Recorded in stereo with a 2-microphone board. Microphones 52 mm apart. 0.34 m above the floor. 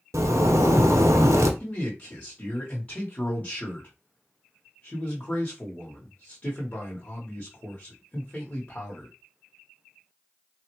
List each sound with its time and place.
0.1 s a zipper: 85° right, 0.6 m
1.6 s a man speaking: 25° left (ahead or behind), 1.0 m